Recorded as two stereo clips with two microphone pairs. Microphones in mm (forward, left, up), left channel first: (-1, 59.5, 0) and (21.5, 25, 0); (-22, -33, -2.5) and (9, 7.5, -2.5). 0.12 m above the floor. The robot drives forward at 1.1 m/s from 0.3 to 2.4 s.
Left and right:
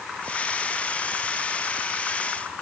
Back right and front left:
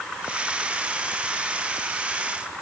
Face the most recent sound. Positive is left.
No sound to turn to.